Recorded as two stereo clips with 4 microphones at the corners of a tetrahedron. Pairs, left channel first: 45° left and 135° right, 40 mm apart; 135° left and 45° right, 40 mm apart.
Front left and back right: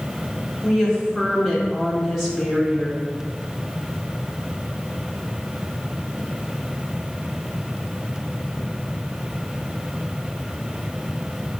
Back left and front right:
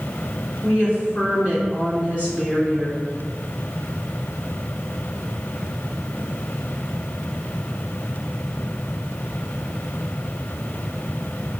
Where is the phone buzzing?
I don't hear a phone buzzing.